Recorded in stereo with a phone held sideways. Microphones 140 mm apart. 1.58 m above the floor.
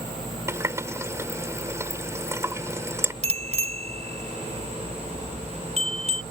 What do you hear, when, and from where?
0.5 s a running tap: 20° right (ahead or behind)
3.2 s a bicycle bell: 50° right (ahead or behind)